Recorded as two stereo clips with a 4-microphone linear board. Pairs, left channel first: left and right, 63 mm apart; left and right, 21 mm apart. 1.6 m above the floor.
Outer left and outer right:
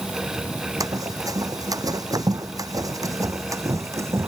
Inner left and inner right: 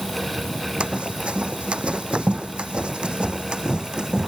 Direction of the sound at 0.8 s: 65° right (ahead or behind).